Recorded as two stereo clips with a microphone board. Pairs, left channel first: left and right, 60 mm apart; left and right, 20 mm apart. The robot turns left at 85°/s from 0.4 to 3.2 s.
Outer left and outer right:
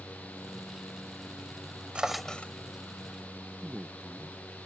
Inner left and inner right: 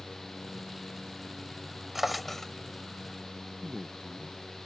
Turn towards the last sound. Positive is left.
turn(degrees=-15)  # may be behind; listen again after turning